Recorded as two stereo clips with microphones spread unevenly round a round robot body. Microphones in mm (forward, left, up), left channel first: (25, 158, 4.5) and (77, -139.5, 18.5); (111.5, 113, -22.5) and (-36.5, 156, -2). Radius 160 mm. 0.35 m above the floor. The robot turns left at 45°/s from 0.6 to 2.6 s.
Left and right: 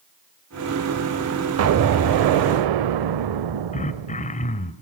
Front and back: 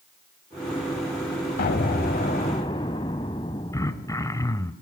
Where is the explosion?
40° right, 0.6 m; by 4.5 s 85° right, 0.6 m.